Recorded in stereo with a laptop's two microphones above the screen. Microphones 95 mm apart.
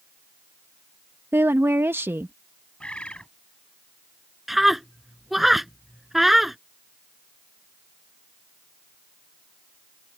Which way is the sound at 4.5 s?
Centre (ahead or behind).